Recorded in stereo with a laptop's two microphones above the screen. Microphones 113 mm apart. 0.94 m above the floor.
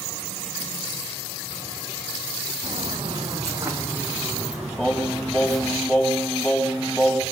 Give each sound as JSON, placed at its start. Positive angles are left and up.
{"t": 2.6, "sound": "footsteps", "side_deg": -45, "distance_m": 3.5}
{"t": 4.8, "sound": "singing", "side_deg": 5, "distance_m": 3.5}